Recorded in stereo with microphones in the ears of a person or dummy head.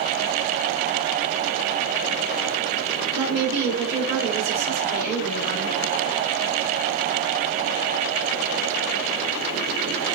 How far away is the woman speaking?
About 2.5 m.